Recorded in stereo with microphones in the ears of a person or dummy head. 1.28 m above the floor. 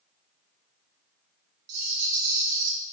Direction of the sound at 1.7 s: 85° right.